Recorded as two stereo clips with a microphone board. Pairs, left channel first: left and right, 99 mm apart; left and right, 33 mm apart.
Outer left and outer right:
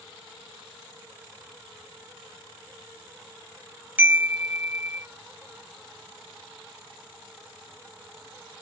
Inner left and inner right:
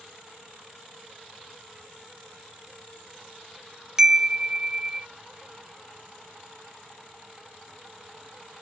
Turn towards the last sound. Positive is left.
turn(degrees=-20)  # may be behind; listen again after turning